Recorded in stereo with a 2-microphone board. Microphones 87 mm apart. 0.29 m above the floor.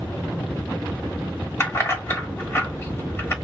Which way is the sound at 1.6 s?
25° left (ahead or behind).